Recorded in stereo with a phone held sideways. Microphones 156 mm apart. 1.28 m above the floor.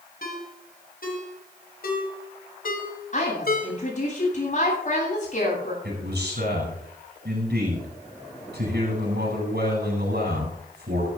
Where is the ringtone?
60° left (ahead or behind), 3 m.